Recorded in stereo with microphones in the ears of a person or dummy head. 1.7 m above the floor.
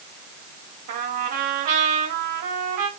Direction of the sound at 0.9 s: 45° right (ahead or behind).